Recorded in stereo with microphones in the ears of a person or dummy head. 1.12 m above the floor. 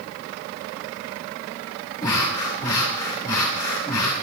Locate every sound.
2.0 s breathing: 20° left (ahead or behind), 2.5 m